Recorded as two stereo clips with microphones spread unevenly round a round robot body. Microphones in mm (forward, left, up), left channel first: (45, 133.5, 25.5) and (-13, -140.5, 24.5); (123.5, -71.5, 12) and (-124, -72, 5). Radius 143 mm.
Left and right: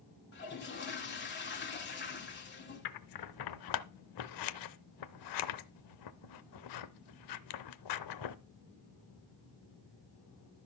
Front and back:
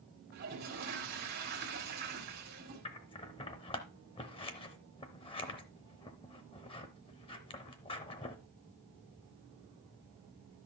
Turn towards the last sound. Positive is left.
turn(degrees=70)